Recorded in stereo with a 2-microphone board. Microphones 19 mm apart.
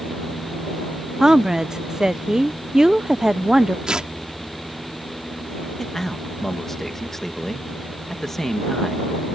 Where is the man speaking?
20° left (ahead or behind).